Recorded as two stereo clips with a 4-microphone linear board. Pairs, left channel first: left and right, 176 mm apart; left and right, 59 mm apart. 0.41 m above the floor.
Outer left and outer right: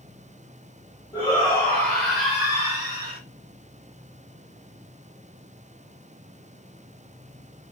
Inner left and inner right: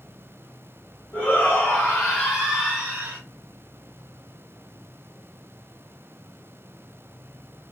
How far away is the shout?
About 1.9 m.